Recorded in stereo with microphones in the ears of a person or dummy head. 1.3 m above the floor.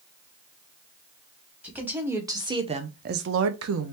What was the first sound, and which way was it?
A woman speaking, 5° right (ahead or behind).